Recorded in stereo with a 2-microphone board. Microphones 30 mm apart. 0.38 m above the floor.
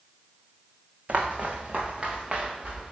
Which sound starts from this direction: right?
Footsteps, at 1.1 s.